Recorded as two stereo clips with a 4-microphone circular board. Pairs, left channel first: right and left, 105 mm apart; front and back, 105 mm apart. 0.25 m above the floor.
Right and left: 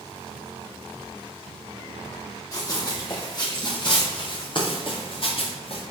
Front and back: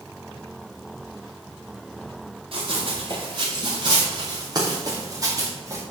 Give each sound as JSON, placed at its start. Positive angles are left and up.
{"t": 2.5, "sound": "running footsteps", "azimuth_deg": -145, "distance_m": 4.0}